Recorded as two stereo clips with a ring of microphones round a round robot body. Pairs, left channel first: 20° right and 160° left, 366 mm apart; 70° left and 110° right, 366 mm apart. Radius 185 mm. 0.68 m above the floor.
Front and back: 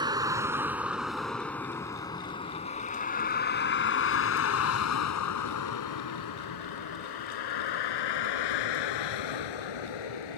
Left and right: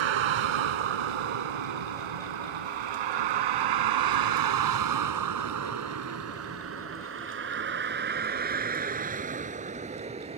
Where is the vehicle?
125° right; by 10.4 s 40° right.